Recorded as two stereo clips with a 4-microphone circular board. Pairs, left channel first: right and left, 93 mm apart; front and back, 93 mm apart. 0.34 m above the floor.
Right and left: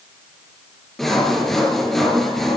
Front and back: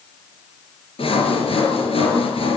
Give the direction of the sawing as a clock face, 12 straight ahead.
12 o'clock.